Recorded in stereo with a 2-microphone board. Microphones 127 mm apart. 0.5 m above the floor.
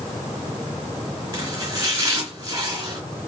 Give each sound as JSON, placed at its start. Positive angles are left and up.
{"t": 1.3, "sound": "chopping", "side_deg": -30, "distance_m": 2.5}